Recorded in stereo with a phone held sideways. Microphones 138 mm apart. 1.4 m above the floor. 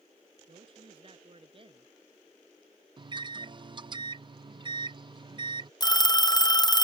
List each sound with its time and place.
0.5 s a woman speaking: 40° right (ahead or behind)
3.0 s a microwave: 35° right (ahead or behind)
5.8 s a phone ringing: 30° left (ahead or behind)